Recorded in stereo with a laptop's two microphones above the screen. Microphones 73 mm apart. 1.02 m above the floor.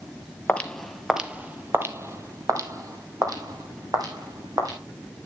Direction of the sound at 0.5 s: 15° left (ahead or behind).